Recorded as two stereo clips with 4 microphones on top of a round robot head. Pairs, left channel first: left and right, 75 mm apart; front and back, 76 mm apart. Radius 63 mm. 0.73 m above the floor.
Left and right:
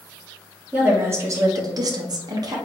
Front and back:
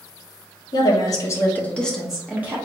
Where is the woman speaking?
25° right, 1.0 m; by 2.6 s 120° right, 1.0 m.